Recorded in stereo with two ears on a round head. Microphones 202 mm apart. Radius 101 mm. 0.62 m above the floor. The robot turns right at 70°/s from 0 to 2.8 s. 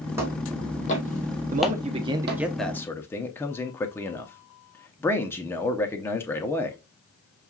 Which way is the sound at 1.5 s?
75° right.